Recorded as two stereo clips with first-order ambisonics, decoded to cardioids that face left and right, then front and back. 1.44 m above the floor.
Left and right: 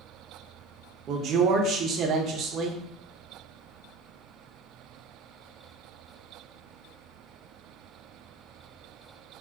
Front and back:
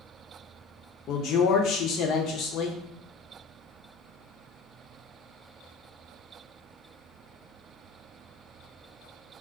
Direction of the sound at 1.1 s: 40° right.